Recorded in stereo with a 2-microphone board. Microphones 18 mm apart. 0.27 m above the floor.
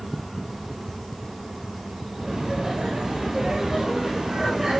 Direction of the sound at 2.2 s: 40° right (ahead or behind).